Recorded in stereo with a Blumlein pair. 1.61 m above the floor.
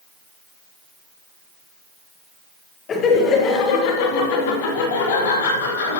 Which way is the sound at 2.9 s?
25° left.